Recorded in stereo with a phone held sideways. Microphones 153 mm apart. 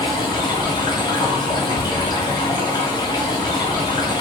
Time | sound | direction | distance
0.0 | running water | 25° left (ahead or behind) | 0.7 m